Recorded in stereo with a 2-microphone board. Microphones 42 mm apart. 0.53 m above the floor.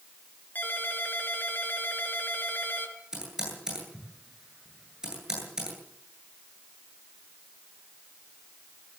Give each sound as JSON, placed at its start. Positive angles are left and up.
{"t": 0.6, "sound": "a ringtone", "side_deg": 45, "distance_m": 4.5}
{"t": 3.1, "sound": "typing on a keyboard", "side_deg": -15, "distance_m": 10.0}